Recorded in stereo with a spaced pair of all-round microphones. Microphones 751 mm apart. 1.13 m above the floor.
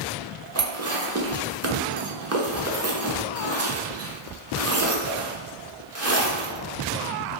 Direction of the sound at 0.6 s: 25° right (ahead or behind).